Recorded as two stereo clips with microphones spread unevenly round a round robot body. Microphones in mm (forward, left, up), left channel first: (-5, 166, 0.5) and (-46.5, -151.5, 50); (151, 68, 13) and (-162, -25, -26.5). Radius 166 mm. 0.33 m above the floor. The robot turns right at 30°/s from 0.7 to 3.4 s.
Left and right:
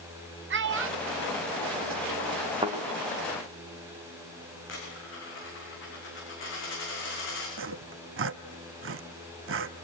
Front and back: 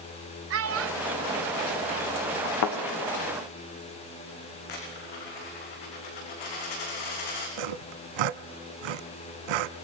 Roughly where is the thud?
Ahead.